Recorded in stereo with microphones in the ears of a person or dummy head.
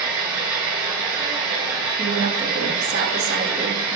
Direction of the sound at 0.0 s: 15° right (ahead or behind).